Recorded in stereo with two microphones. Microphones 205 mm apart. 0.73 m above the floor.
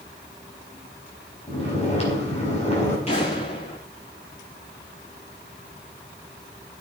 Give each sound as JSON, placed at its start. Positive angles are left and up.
{"t": 1.5, "sound": "snoring", "side_deg": 30, "distance_m": 5.0}
{"t": 3.1, "sound": "an explosion", "side_deg": 30, "distance_m": 7.5}